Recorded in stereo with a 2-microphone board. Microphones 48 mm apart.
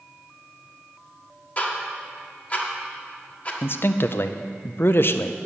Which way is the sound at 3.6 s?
50° left (ahead or behind).